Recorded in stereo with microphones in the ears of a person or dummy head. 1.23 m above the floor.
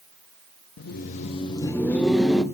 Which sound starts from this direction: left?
Laughter, at 0.8 s.